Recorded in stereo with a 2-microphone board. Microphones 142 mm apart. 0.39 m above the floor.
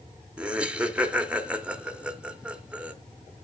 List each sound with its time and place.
0.4 s laughter: 5° right (ahead or behind), 0.8 m